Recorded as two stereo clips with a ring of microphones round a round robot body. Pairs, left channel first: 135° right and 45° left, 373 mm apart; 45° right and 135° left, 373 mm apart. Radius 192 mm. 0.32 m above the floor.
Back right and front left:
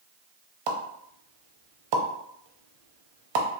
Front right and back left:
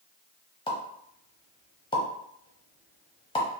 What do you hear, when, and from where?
0.7 s a pop: 30° left, 0.7 m